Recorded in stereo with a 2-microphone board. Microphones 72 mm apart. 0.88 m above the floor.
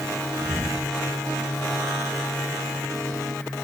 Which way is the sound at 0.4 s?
25° left (ahead or behind).